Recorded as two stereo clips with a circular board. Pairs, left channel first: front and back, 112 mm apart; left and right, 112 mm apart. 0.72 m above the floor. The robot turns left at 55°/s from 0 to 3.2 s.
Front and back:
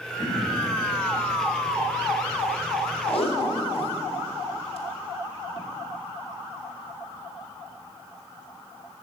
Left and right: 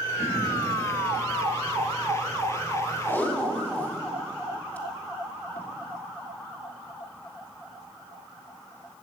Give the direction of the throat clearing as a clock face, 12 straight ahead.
1 o'clock.